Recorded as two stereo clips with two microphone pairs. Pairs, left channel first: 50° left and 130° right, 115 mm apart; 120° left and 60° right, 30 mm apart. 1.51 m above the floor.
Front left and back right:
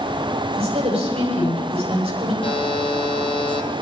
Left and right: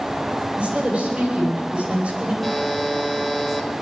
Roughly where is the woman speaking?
Right.